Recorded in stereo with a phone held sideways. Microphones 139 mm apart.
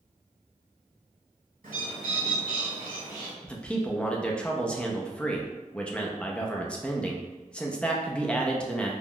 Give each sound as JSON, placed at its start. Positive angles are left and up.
{"t": 1.6, "sound": "a bird", "side_deg": -80, "distance_m": 1.4}
{"t": 3.4, "sound": "a man speaking", "side_deg": 10, "distance_m": 0.5}